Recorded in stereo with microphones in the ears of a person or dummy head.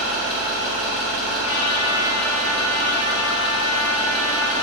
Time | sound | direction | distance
0.0 | an engine running | 5° left (ahead or behind) | 2 m
1.4 | a trumpet | 65° left (ahead or behind) | 1.3 m